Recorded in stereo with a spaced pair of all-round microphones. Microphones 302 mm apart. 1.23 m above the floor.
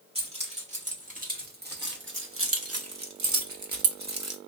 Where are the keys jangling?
20° right (ahead or behind), 1.8 m; by 4.4 s 55° right (ahead or behind), 0.9 m.